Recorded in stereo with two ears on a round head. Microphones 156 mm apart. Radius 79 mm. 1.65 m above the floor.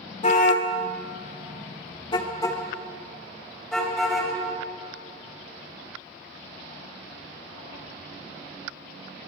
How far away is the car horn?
About 2.5 m.